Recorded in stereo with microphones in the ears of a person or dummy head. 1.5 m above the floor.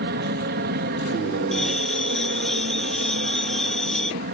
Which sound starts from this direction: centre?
A bell, at 1.5 s.